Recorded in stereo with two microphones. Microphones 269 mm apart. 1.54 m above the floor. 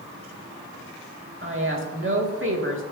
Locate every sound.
1.4 s a woman speaking: 50° right (ahead or behind), 2.0 m